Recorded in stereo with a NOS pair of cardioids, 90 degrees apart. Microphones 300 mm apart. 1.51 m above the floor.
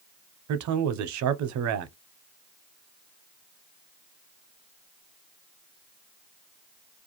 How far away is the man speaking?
About 0.6 m.